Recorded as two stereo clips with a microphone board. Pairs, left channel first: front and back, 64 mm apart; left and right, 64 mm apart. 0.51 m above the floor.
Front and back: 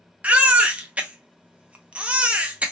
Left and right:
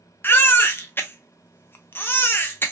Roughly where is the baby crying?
Behind left.